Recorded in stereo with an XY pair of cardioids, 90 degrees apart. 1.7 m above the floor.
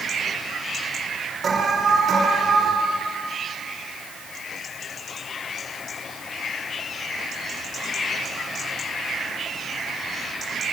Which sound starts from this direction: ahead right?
An alarm, at 1.4 s.